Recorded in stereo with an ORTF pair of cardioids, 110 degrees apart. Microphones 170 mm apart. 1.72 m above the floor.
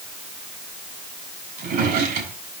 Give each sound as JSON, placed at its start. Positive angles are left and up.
{"t": 1.6, "sound": "a drawer", "azimuth_deg": -65, "distance_m": 4.5}